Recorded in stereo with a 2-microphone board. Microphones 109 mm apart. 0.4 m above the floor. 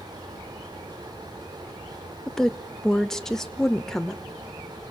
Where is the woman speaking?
5° left (ahead or behind), 0.9 m.